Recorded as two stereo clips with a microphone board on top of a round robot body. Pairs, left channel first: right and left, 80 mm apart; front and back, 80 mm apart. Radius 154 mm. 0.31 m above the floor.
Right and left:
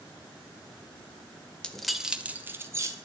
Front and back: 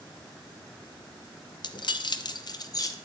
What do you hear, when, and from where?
1.6 s keys jangling: 10° right, 1.0 m; by 3.0 s 40° left, 1.2 m